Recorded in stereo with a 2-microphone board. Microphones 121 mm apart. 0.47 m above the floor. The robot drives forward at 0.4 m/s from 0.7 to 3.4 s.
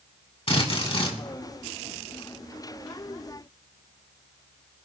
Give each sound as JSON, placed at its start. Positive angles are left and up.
{"t": 0.5, "sound": "a drill", "side_deg": 50, "distance_m": 3.0}